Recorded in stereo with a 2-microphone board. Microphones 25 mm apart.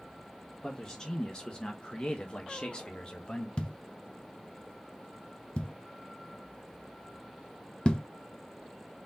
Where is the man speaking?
25° left (ahead or behind), 1.1 m; by 3.5 s 30° left (ahead or behind), 1.4 m.